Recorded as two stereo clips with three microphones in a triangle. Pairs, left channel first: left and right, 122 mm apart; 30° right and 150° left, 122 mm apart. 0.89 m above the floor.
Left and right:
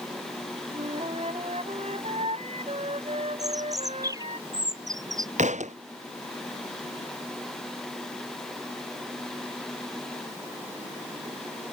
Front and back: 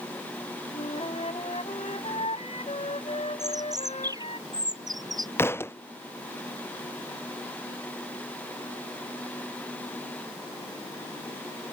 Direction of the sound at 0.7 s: 60° right.